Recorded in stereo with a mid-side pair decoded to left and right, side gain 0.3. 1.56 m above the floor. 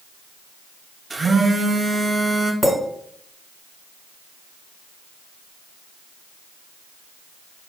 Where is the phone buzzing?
45° right, 0.6 m.